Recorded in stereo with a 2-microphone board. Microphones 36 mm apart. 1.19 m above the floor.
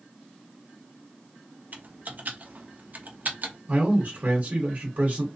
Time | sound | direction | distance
1.7 | typing on a keyboard | 50° right (ahead or behind) | 0.6 m
3.7 | a man speaking | 55° right (ahead or behind) | 1.0 m